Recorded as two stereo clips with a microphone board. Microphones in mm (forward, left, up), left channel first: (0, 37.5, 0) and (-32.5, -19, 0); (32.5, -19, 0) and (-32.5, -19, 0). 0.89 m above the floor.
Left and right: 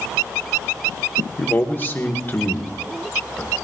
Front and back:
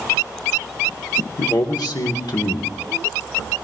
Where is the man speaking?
5° left, 1.8 m.